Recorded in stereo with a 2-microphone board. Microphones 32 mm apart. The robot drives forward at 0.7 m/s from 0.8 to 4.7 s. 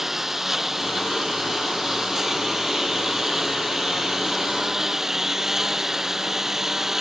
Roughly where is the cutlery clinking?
I don't hear cutlery clinking.